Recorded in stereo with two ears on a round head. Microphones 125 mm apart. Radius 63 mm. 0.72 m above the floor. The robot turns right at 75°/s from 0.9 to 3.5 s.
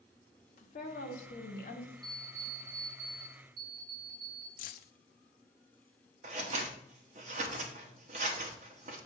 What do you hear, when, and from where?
0.6 s a woman speaking: 55° left, 1.7 m; by 1.9 s 130° left, 1.7 m
2.0 s an alarm clock: 135° left, 3 m; by 4.5 s 115° right, 3 m
4.6 s keys jangling: 60° left (ahead or behind), 0.6 m
6.2 s scissors: 50° right (ahead or behind), 1.5 m